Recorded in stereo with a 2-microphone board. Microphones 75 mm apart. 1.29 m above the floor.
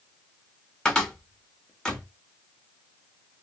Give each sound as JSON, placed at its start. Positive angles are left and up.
{"t": 0.8, "sound": "a cupboard door", "side_deg": 10, "distance_m": 0.8}